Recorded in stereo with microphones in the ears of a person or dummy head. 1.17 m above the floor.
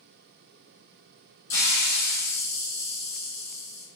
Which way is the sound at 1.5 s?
15° left (ahead or behind).